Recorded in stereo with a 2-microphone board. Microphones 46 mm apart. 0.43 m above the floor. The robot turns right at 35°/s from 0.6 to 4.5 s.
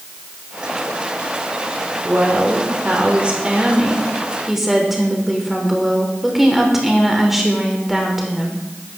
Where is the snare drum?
No snare drum in this recording.